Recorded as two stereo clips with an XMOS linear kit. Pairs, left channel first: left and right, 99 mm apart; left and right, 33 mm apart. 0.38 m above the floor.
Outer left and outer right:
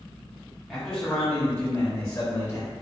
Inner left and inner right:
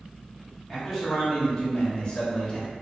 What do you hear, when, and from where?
0.7 s a man speaking: 5° left (ahead or behind), 1.6 m; by 2.7 s 40° left (ahead or behind), 1.7 m